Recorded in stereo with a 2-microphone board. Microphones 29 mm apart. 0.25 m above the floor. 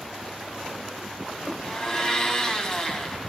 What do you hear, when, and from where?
1.6 s a blender: 25° left (ahead or behind), 2 m